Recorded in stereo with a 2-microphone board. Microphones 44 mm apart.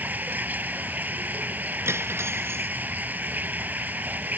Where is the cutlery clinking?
75° right (ahead or behind).